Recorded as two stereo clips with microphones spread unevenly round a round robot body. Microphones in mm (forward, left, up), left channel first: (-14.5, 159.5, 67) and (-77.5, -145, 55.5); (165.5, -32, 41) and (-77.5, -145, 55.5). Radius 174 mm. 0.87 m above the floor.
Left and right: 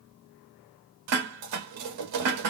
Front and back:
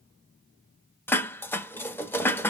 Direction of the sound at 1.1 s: 60° right.